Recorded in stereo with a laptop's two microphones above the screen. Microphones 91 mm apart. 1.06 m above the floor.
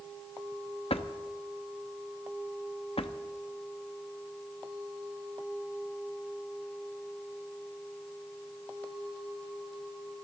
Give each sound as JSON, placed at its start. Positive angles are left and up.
{"t": 0.9, "sound": "a drawer", "side_deg": 80, "distance_m": 0.9}